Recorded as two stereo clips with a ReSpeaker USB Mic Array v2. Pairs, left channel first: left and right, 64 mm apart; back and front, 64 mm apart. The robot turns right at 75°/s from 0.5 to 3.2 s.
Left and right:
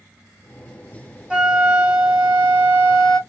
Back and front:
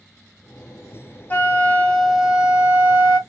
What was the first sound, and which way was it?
A flute, 150° right.